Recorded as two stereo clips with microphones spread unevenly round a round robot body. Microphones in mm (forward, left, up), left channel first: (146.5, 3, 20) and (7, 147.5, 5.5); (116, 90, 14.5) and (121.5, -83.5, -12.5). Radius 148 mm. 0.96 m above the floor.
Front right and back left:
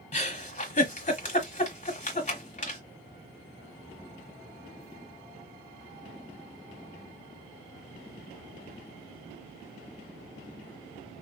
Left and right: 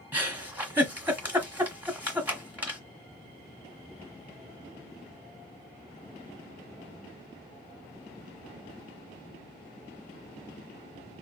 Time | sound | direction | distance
0.1 | a giggle | 5° right | 1.3 m